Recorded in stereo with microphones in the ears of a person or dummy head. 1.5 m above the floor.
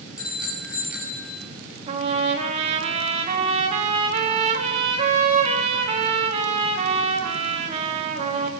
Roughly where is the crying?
I don't hear crying.